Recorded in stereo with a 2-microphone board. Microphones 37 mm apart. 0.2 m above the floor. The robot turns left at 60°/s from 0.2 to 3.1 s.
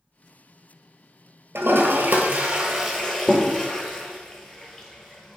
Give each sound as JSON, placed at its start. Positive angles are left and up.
{"t": 1.6, "sound": "a toilet flushing", "side_deg": -80, "distance_m": 0.8}